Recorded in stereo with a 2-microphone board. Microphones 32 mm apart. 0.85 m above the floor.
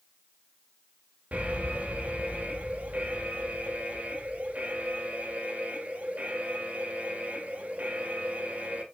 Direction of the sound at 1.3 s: 50° right (ahead or behind).